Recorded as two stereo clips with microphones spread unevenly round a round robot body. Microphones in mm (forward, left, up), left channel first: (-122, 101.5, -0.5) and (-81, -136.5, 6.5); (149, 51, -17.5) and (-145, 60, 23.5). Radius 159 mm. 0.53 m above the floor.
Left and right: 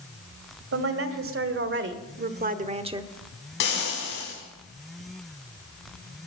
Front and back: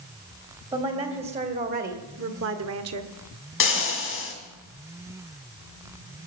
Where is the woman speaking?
105° right, 2.5 m; by 3.1 s 155° right, 1.2 m.